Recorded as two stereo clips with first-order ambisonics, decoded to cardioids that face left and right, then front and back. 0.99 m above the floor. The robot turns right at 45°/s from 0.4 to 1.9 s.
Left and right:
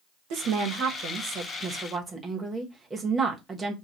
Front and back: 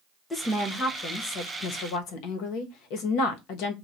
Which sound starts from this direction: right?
A woman speaking, at 0.3 s.